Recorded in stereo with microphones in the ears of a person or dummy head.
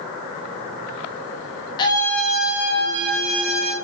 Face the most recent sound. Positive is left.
turn(degrees=-45)  # may be behind; listen again after turning